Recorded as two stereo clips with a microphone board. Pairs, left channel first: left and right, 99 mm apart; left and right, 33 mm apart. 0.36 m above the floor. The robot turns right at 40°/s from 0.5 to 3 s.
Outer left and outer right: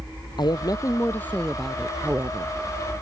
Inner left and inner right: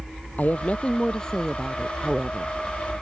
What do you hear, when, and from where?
0.4 s a woman speaking: 135° left; by 2.5 s 145° right